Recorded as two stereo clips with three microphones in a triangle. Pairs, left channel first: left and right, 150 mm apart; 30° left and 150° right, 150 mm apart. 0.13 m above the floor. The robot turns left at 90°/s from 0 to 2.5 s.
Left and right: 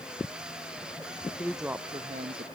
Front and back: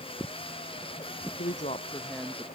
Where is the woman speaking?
15° left; by 2.5 s 80° right.